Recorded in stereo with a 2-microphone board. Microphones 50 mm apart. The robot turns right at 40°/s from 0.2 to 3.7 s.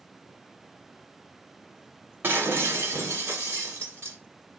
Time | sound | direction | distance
2.2 | breaking glass | 130° right | 1.2 m